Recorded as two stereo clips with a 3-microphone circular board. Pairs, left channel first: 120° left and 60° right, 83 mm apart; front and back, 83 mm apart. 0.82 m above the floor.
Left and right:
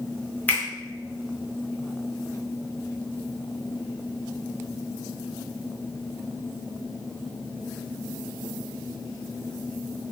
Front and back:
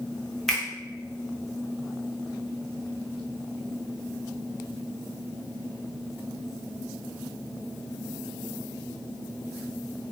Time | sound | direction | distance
0.5 | a finger snap | 80° left | 0.7 m